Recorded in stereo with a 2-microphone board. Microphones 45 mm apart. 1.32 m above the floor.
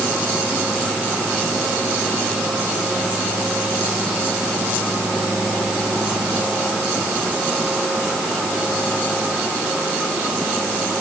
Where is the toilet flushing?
No toilet flushing in this recording.